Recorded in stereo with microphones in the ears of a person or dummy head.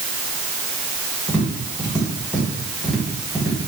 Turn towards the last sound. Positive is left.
turn(degrees=10)  # may be behind; listen again after turning